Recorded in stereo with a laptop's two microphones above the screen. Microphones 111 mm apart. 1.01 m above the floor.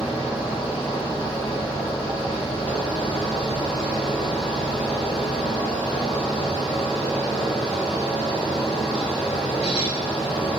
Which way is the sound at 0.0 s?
70° left (ahead or behind).